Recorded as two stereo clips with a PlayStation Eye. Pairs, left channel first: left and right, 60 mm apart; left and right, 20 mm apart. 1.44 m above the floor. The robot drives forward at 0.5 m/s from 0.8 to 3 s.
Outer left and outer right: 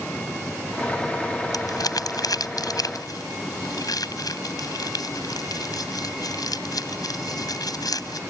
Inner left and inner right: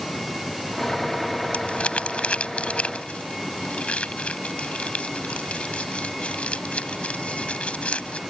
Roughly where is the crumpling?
Left.